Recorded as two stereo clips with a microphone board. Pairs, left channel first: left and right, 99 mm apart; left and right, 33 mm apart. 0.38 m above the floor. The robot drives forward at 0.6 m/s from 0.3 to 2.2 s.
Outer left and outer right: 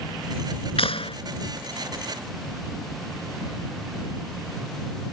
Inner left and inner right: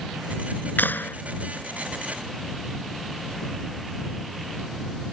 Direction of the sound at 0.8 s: 75° left (ahead or behind).